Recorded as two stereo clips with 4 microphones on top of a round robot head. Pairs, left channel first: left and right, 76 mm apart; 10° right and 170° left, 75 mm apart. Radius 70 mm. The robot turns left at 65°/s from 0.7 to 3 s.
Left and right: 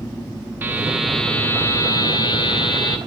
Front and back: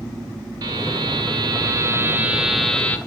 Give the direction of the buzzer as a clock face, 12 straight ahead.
5 o'clock.